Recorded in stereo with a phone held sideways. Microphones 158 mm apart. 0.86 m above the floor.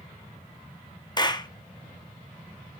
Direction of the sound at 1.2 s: 25° left (ahead or behind).